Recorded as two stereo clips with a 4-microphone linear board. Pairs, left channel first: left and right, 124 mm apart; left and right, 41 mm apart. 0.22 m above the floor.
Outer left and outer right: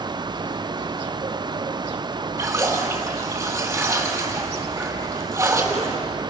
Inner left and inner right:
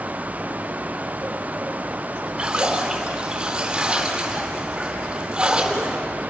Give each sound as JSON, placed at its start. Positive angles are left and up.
{"t": 2.4, "sound": "a splash", "side_deg": -20, "distance_m": 3.5}